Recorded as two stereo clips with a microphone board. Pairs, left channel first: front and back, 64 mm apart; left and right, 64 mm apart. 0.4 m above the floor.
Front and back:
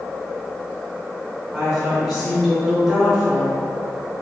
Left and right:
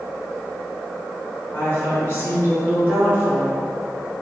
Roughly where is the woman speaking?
Left.